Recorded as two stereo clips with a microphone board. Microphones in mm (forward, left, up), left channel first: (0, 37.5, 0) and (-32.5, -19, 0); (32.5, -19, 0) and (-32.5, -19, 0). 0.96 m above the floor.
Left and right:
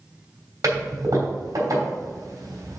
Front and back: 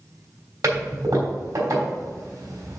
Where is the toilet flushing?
155° right, 3 m.